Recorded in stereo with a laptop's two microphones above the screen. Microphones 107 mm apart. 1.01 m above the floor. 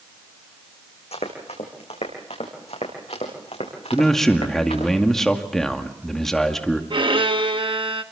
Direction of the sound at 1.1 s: 75° left (ahead or behind).